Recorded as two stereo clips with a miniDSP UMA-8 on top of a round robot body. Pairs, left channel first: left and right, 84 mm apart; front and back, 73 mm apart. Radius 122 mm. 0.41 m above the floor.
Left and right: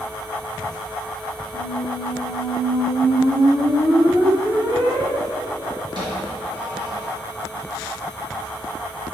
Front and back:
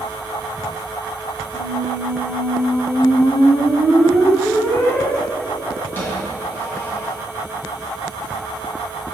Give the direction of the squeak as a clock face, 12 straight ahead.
2 o'clock.